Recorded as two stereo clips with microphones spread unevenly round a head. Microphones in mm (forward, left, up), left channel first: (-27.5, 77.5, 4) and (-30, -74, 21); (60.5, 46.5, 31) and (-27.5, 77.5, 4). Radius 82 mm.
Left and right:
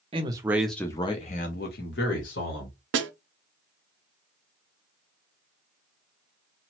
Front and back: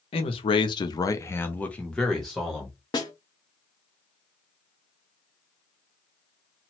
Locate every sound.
0.1 s a man speaking: 35° right, 0.7 m; by 2.8 s 70° left, 1.3 m
2.9 s a snare drum: 90° right, 0.5 m